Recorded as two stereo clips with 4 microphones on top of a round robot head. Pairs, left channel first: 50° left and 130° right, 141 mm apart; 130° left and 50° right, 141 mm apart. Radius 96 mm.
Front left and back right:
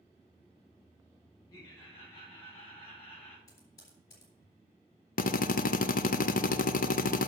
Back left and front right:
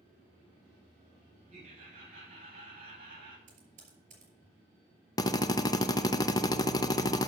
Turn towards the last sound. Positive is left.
turn(degrees=65)